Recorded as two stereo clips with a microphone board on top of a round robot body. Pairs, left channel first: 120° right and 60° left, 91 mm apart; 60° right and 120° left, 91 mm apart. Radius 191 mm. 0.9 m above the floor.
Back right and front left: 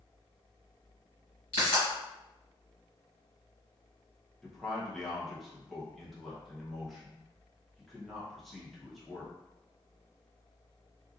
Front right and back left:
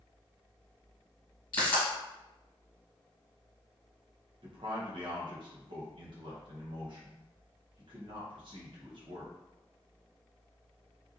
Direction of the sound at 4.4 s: 150° left.